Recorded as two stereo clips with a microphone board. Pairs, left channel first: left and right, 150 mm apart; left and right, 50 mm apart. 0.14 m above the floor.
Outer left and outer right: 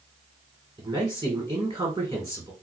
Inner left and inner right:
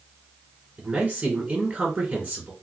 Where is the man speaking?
15° right (ahead or behind), 1.5 m.